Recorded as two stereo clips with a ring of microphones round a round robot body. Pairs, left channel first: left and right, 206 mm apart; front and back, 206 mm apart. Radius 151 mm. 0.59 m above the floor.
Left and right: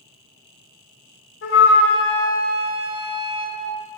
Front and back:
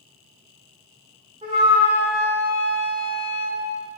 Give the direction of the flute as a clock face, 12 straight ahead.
8 o'clock.